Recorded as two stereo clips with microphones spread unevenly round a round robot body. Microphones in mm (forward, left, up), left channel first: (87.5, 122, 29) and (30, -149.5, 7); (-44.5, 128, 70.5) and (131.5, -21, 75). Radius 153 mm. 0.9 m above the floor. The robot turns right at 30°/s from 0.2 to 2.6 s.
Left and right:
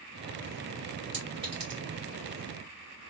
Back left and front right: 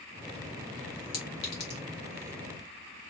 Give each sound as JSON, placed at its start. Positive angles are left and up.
{"t": 1.1, "sound": "a clink", "azimuth_deg": 175, "distance_m": 1.4}